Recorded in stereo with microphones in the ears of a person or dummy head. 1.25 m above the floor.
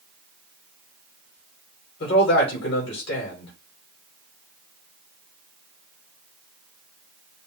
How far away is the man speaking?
About 2.5 m.